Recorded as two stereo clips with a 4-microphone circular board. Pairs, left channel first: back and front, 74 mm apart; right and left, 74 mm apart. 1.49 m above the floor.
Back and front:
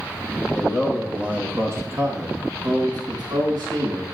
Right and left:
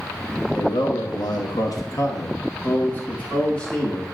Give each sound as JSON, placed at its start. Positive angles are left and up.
{"t": 0.5, "sound": "a man speaking", "azimuth_deg": -90, "distance_m": 2.0}